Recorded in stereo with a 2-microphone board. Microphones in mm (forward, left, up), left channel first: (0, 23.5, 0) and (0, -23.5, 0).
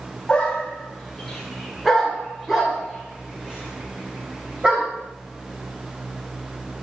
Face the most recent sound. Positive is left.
turn(degrees=-25)  # may be behind; listen again after turning